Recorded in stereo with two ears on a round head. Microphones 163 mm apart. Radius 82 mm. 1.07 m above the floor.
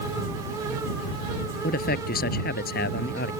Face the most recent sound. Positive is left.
turn(degrees=55)  # may be behind; listen again after turning